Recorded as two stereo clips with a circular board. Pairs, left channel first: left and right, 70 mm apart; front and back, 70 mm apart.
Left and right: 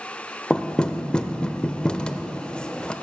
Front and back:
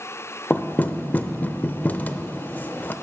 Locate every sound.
0.5 s knocking: 25° left, 0.5 m